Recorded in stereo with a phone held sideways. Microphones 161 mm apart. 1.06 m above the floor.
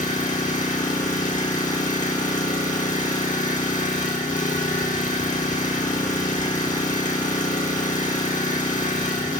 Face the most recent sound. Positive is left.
turn(degrees=55)  # may be behind; listen again after turning